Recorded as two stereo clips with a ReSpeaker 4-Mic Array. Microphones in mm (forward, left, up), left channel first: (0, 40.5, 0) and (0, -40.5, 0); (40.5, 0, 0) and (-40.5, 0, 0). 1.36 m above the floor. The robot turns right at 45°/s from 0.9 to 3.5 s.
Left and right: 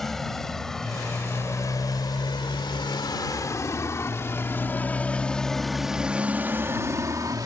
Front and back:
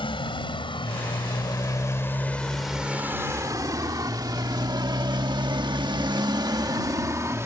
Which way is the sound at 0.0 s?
5° left.